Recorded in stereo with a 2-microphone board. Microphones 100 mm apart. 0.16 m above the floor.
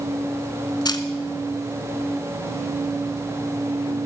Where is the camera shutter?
45° left (ahead or behind), 0.9 m.